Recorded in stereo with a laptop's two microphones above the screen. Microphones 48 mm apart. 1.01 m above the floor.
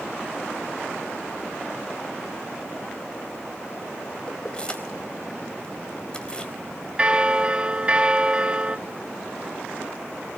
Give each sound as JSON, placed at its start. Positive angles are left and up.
{"t": 4.3, "sound": "keys jangling", "side_deg": 20, "distance_m": 4.0}
{"t": 7.0, "sound": "a bell", "side_deg": -25, "distance_m": 0.8}